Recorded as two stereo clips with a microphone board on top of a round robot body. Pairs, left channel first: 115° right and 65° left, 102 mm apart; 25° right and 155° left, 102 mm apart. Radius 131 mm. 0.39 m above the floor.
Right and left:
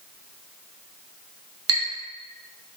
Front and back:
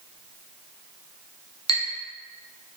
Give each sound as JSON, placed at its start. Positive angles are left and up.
{"t": 1.7, "sound": "a clink", "azimuth_deg": 15, "distance_m": 1.8}